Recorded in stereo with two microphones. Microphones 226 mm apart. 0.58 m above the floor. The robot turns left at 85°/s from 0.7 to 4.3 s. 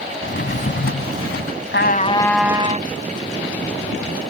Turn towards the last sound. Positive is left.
turn(degrees=-165)